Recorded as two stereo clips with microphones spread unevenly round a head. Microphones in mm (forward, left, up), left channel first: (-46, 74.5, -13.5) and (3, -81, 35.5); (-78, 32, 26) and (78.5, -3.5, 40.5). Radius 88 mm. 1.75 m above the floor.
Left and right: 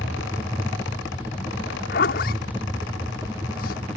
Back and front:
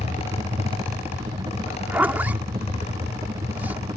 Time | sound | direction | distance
0.0 | a helicopter | 30° left | ?
1.7 | a zipper | 65° left | ?